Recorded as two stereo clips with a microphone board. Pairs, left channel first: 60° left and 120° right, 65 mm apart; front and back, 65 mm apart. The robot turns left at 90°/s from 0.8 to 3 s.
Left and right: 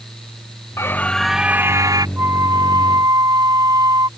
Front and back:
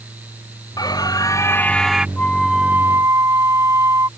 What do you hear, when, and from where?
0.8 s a scream: 10° left; by 2.1 s 100° right
2.2 s a flute: 65° right; by 4.1 s 140° right